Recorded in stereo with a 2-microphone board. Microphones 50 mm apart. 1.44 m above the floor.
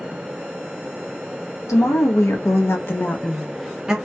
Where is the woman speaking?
75° left (ahead or behind), 1.0 m; by 4.0 s 15° right (ahead or behind), 0.6 m.